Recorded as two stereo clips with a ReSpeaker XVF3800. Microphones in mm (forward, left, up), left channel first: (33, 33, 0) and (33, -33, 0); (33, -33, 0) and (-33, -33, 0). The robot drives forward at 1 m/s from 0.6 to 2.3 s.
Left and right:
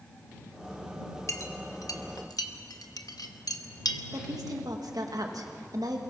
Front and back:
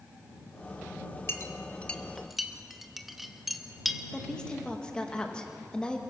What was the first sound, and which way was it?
A clink, 50° left.